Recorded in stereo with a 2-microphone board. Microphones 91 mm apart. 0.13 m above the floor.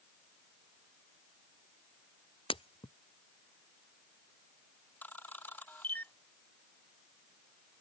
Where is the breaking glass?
80° left.